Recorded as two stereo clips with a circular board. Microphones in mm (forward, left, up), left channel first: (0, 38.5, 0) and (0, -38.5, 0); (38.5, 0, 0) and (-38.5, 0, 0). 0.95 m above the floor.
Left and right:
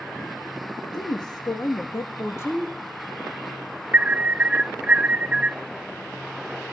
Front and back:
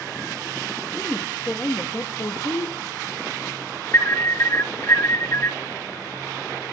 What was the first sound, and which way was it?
A woman speaking, 75° left.